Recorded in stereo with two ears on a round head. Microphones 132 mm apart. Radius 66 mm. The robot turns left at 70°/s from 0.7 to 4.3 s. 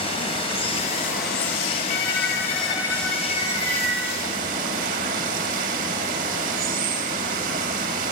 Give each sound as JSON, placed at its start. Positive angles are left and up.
{"t": 0.0, "sound": "running water", "azimuth_deg": 140, "distance_m": 3.5}
{"t": 1.9, "sound": "a violin", "azimuth_deg": 85, "distance_m": 6.0}